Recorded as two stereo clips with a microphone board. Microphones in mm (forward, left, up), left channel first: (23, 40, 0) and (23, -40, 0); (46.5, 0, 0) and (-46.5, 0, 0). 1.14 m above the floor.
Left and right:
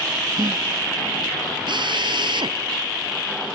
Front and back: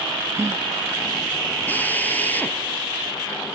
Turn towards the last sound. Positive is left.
turn(degrees=-70)